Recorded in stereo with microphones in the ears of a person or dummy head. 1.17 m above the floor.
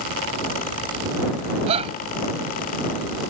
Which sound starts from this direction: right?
A shout, at 1.7 s.